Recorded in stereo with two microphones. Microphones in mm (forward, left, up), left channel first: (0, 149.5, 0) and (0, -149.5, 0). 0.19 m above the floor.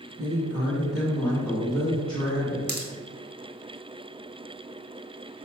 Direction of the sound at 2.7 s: 35° right (ahead or behind).